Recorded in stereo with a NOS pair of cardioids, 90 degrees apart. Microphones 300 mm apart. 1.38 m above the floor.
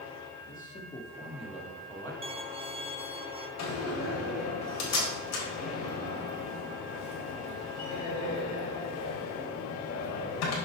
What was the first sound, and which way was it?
A man speaking, 30° left.